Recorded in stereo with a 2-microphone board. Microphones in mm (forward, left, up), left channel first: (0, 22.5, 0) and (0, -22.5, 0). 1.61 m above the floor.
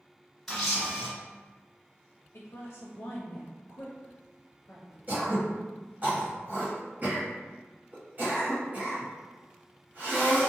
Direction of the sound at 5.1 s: 40° right (ahead or behind).